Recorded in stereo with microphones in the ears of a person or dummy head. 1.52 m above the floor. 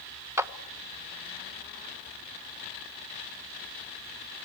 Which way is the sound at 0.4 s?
15° right (ahead or behind).